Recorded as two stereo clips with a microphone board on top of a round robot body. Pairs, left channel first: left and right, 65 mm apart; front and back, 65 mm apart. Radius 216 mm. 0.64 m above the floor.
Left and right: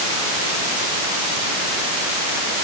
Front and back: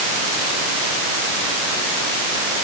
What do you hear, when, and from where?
Only background noise.